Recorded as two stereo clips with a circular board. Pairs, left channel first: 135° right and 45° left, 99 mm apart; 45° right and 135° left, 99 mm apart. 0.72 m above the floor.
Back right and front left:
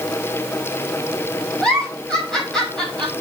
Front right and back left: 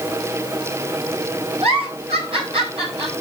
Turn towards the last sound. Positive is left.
turn(degrees=140)